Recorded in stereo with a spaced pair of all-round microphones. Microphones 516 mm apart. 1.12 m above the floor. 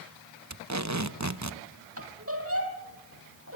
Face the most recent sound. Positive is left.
turn(degrees=-25)  # may be behind; listen again after turning